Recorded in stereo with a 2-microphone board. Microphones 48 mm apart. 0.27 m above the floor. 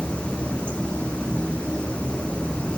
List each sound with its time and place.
0.0 s running water: 20° left (ahead or behind), 1.2 m